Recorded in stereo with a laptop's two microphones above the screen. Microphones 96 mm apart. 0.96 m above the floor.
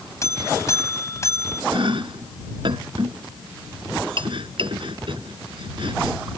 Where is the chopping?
60° right (ahead or behind).